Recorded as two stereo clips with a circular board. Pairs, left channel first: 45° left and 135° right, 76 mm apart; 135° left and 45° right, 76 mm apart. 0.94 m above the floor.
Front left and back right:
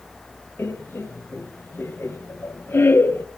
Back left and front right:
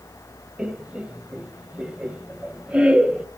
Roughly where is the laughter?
Ahead.